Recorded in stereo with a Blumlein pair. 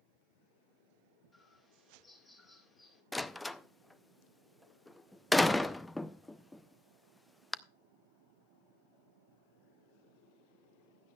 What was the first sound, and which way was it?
A bird, 15° left.